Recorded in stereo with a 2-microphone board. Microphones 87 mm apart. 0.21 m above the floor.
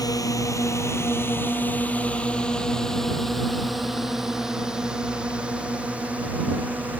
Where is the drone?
45° left (ahead or behind); by 7.0 s 20° right (ahead or behind).